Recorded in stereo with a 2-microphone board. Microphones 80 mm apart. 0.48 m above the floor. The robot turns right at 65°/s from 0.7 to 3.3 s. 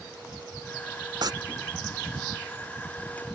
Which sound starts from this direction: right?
Tearing paper, at 1.2 s.